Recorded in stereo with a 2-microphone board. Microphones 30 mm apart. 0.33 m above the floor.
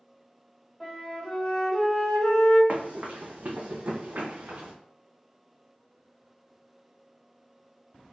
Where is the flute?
15° left (ahead or behind), 1.5 m.